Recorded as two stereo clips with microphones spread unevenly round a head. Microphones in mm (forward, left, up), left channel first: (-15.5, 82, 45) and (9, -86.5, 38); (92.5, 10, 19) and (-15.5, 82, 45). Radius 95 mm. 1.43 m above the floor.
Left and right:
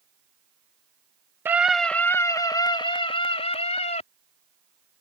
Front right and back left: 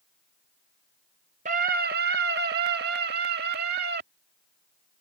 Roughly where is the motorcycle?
I don't hear a motorcycle.